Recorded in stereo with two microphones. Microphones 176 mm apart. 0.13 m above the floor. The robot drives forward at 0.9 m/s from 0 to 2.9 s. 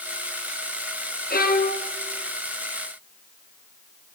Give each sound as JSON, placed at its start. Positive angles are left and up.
{"t": 1.3, "sound": "a violin", "side_deg": 60, "distance_m": 2.5}